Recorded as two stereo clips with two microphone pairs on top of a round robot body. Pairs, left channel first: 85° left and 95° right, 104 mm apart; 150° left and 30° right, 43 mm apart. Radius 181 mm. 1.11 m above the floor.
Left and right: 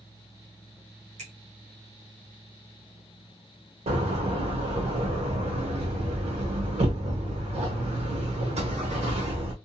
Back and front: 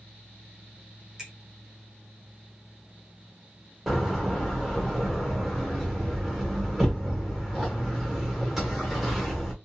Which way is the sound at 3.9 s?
115° right.